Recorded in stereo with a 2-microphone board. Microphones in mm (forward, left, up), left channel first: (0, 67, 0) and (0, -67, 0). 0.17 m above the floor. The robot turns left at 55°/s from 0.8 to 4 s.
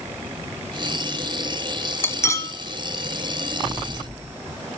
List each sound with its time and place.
2.0 s cutlery clinking: 15° left (ahead or behind), 0.6 m; by 2.5 s 25° left (ahead or behind), 0.6 m